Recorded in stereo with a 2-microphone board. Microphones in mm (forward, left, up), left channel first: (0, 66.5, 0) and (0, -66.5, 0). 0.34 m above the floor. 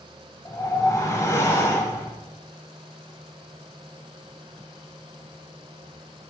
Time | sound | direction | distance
0.5 | a whoosh | 25° left (ahead or behind) | 0.9 m